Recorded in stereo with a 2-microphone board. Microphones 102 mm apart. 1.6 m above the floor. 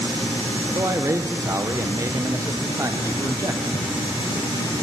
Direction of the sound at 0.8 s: 30° right (ahead or behind).